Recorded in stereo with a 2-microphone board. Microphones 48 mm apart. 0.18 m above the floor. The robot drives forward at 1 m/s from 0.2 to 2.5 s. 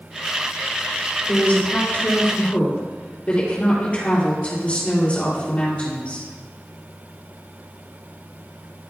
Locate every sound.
1.3 s a woman speaking: 35° left (ahead or behind), 3.5 m; by 6.3 s 30° left (ahead or behind), 4 m